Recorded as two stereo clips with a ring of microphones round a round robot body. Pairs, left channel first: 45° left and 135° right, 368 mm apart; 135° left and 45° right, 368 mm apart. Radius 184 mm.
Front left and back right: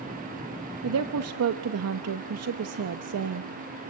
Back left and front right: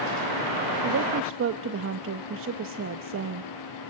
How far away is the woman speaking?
About 0.8 m.